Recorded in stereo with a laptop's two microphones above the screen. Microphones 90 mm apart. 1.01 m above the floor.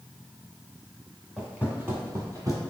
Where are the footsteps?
5° right (ahead or behind), 1.2 m; by 2.6 s 45° right (ahead or behind), 1.4 m.